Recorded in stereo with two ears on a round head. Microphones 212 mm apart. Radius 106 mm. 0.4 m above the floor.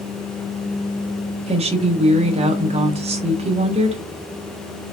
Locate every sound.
1.5 s a woman speaking: 25° right (ahead or behind), 1.2 m